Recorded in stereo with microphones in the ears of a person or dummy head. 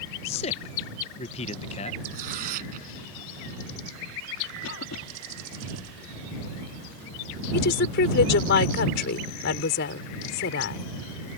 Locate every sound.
0.2 s a man speaking: 35° left (ahead or behind)
2.1 s tearing paper: 55° right (ahead or behind)
4.6 s a cough: 80° left
7.5 s a woman speaking: 65° left (ahead or behind)